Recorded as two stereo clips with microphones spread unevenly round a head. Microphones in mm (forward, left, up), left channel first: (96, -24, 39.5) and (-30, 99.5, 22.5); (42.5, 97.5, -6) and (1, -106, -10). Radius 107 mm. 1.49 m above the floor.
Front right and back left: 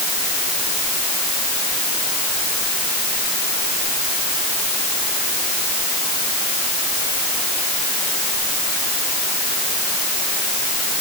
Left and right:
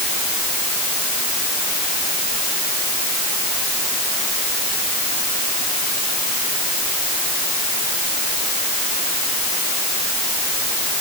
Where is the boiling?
I don't hear boiling.